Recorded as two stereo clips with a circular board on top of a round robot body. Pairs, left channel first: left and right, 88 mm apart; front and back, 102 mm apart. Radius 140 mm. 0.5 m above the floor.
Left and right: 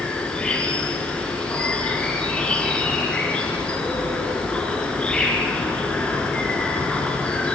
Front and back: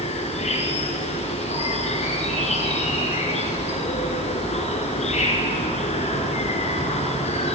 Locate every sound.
0.0 s an insect: 10° left, 3.5 m